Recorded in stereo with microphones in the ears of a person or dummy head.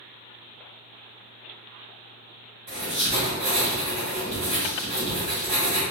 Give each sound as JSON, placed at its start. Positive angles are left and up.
{"t": 2.7, "sound": "writing", "side_deg": -35, "distance_m": 1.3}